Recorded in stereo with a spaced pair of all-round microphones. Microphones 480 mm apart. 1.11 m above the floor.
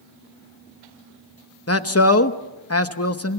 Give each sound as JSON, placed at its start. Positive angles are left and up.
{"t": 1.7, "sound": "a man speaking", "side_deg": 30, "distance_m": 1.0}